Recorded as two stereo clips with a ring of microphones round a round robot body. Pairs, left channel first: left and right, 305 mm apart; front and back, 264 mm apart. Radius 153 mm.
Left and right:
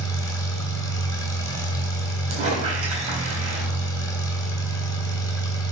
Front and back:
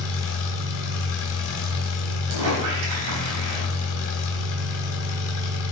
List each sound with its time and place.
0.0 s an engine running: 10° left, 2.5 m
2.3 s a squeak: 160° right, 3.5 m